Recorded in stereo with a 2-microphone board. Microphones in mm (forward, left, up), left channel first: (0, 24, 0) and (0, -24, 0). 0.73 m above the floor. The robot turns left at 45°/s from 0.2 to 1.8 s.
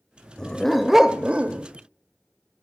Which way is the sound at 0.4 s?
15° left.